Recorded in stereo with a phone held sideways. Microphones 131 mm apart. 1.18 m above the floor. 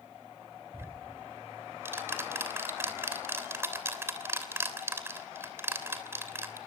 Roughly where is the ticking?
Centre.